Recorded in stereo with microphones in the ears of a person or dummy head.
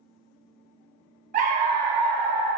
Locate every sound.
1.3 s a dog barking: 40° right (ahead or behind), 1.2 m; by 2.5 s 20° left (ahead or behind), 1.1 m